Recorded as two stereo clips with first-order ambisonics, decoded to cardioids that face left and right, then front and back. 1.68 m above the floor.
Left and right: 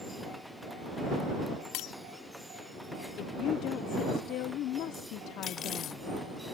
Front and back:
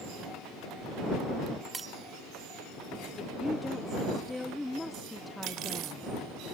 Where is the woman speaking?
85° left.